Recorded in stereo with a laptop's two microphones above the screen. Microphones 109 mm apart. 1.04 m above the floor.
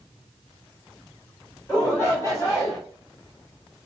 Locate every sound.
1.7 s a shout: 20° left (ahead or behind), 3 m; by 2.8 s 30° left (ahead or behind), 3.5 m